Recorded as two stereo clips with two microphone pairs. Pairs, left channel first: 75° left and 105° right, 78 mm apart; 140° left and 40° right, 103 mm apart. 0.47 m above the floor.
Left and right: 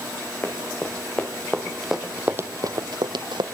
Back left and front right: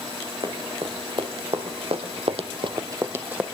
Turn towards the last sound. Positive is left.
turn(degrees=-115)